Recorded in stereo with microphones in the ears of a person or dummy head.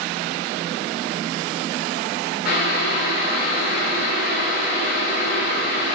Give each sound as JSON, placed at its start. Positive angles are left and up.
{"t": 2.5, "sound": "boiling", "side_deg": 50, "distance_m": 1.8}